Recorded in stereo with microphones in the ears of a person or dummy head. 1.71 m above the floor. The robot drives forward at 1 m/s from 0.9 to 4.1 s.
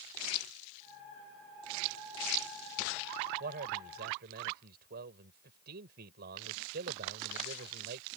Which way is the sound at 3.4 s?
55° right (ahead or behind).